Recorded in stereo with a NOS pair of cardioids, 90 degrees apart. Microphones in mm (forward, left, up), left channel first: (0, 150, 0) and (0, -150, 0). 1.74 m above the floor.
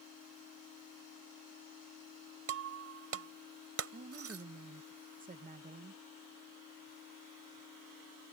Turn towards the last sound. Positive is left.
turn(degrees=-25)